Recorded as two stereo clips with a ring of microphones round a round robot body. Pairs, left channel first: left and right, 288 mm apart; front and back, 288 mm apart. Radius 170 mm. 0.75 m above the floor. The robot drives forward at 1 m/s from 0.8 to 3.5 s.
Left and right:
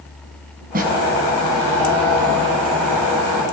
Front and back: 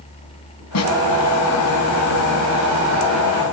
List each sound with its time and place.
0.7 s a snare drum: 25° right, 5.5 m; by 0.9 s 30° right, 5.5 m